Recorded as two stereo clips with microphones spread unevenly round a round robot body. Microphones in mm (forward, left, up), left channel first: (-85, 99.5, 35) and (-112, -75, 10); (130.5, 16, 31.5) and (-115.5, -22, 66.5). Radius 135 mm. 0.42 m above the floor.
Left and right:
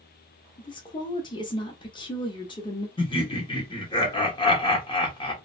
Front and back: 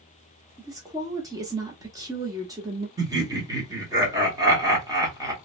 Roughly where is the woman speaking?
Behind left.